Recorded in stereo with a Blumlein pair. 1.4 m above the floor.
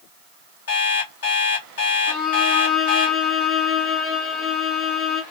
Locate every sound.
0.7 s an alarm clock: 60° left, 1.7 m
2.1 s a violin: 25° left, 1.0 m